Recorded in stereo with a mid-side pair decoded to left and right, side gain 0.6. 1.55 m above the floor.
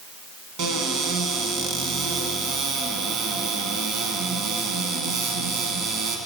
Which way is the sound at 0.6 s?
65° right.